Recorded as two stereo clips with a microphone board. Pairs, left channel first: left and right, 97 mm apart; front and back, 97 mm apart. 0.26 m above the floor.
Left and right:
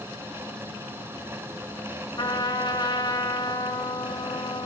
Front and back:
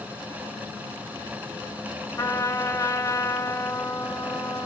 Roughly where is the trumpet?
Ahead left.